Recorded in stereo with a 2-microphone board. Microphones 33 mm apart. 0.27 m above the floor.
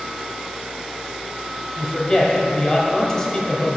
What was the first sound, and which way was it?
A woman speaking, 15° left (ahead or behind).